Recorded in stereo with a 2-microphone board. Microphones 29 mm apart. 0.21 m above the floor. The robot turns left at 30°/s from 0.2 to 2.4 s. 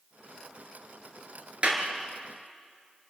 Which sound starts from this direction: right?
A clap, at 1.6 s.